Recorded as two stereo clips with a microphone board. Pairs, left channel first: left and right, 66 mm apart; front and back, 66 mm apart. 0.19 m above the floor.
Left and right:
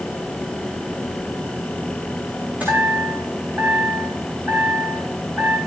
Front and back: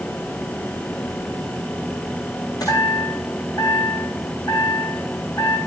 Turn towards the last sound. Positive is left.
turn(degrees=-20)